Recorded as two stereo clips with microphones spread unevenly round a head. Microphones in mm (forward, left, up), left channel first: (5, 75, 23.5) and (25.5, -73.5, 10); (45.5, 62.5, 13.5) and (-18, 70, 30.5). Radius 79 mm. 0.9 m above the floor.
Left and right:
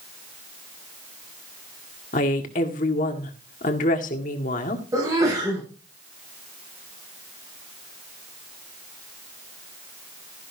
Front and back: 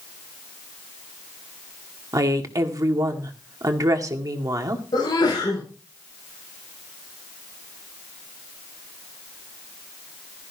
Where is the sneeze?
15° right, 6.5 m.